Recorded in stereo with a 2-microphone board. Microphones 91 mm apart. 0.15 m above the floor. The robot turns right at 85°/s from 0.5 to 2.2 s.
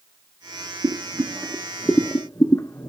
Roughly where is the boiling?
Right.